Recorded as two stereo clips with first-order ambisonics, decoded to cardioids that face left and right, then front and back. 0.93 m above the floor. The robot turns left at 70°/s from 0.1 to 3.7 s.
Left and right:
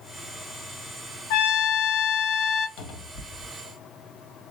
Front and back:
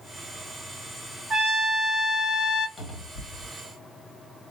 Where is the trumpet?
110° left, 0.6 m; by 2.7 s 15° left, 0.6 m.